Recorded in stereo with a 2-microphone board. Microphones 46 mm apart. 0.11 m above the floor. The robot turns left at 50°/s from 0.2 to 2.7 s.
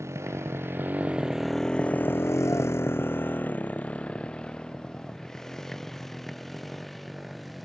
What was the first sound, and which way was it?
A motorcycle, 85° right.